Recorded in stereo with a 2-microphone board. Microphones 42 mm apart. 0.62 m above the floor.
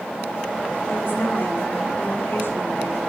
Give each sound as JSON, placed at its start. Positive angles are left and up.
{"t": 0.9, "sound": "a woman speaking", "side_deg": 55, "distance_m": 4.0}